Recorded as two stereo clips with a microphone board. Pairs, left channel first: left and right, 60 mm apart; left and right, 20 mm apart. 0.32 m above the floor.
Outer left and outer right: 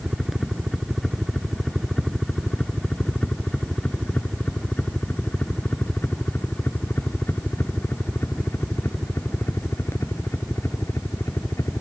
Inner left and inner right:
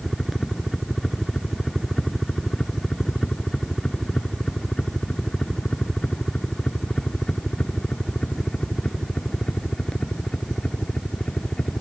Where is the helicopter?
Centre (ahead or behind); by 11.8 s 55° left (ahead or behind).